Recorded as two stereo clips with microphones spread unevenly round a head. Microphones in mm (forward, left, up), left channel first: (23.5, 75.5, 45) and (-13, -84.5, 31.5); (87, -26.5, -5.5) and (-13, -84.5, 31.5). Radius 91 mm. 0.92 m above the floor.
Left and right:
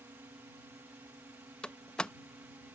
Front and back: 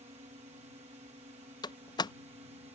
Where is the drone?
170° right.